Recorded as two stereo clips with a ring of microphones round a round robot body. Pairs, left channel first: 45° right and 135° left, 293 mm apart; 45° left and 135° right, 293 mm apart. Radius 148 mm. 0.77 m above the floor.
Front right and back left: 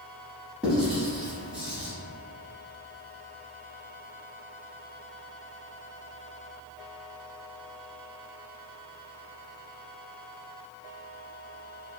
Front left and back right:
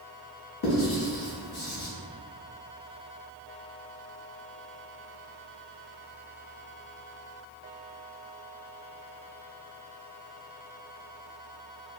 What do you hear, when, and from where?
0.6 s writing: 50° left, 1.0 m